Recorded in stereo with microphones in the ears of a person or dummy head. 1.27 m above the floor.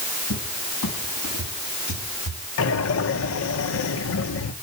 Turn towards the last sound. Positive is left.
turn(degrees=80)